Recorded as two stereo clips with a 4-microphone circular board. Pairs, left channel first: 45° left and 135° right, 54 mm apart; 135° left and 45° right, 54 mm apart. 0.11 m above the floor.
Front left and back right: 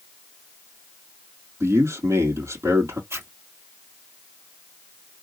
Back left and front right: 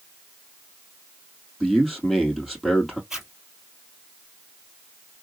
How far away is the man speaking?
About 2.5 m.